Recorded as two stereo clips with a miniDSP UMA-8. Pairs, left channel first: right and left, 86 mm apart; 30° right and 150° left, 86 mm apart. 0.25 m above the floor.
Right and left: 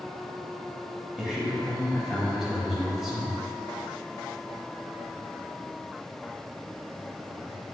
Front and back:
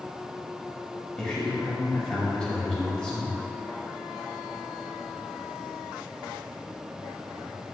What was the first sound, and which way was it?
A man speaking, 25° left.